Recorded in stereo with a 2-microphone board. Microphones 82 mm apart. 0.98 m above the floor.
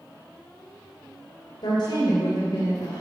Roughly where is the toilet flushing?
No toilet flushing in this recording.